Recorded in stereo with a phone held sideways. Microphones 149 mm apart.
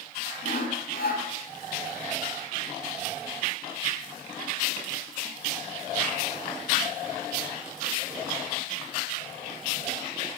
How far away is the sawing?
About 6 m.